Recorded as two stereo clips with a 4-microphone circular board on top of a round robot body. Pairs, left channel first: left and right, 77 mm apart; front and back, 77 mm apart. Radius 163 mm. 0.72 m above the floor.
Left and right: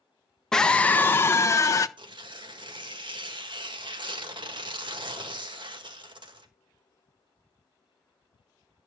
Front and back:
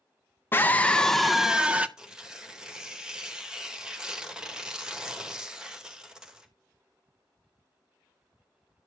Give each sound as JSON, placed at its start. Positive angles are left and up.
{"t": 0.5, "sound": "a scream", "azimuth_deg": 15, "distance_m": 0.8}
{"t": 2.0, "sound": "tearing paper", "azimuth_deg": -100, "distance_m": 1.8}